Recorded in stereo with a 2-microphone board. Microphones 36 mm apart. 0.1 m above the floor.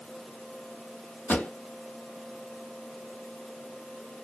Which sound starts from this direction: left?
A pop, at 1.3 s.